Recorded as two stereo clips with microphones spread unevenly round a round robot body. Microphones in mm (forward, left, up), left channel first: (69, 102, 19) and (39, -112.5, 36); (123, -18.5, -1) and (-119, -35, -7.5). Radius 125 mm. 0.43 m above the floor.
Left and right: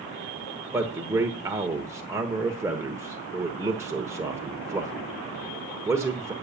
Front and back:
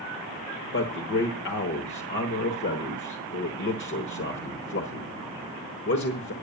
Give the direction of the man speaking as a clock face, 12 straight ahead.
1 o'clock.